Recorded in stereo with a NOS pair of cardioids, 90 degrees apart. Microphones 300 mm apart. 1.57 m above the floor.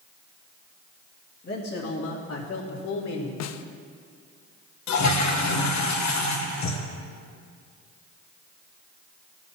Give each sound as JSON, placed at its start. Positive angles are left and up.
{"t": 1.4, "sound": "a man speaking", "azimuth_deg": 30, "distance_m": 2.0}
{"t": 3.4, "sound": "a snare drum", "azimuth_deg": 60, "distance_m": 0.7}
{"t": 4.9, "sound": "a toilet flushing", "azimuth_deg": 65, "distance_m": 1.3}